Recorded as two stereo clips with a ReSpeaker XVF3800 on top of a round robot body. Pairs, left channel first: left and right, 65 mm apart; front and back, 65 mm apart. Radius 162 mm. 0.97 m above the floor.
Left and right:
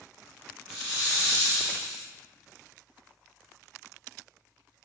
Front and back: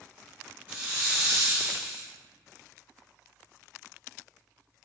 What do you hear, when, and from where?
0.7 s a hiss: 115° right, 0.5 m